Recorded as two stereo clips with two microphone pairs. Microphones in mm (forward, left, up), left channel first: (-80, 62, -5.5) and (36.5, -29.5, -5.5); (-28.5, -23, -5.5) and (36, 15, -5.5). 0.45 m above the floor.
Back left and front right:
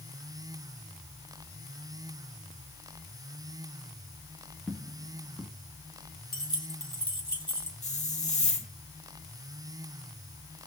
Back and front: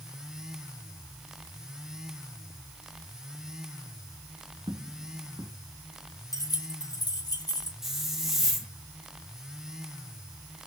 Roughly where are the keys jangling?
Behind.